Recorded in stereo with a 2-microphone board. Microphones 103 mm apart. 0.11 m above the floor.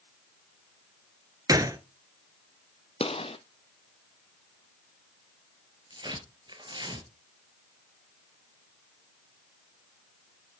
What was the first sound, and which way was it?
A gunshot, 35° right (ahead or behind).